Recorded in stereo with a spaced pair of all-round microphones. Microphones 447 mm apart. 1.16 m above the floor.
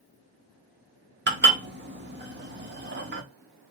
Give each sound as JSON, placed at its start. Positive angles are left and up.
{"t": 1.3, "sound": "dishes clattering", "side_deg": -25, "distance_m": 0.7}